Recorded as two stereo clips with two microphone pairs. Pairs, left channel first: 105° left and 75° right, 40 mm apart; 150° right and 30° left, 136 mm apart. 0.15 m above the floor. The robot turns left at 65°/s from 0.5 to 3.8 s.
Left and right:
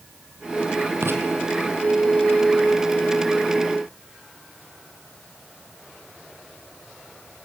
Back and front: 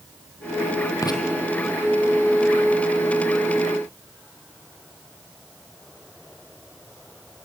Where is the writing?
85° right, 3 m; by 1.2 s 95° right, 3 m.